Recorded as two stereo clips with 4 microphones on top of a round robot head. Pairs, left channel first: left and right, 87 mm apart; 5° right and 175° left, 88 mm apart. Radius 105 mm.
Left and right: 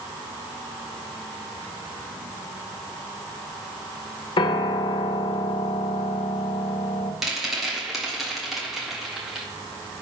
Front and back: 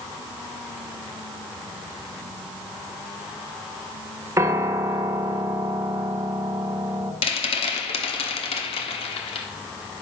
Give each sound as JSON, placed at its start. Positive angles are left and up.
{"t": 4.4, "sound": "a piano", "azimuth_deg": 115, "distance_m": 0.8}
{"t": 7.2, "sound": "a rattle", "azimuth_deg": 0, "distance_m": 1.3}